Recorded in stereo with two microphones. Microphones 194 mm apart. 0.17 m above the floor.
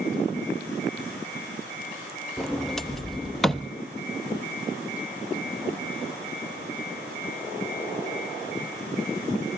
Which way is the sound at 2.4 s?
Centre (ahead or behind).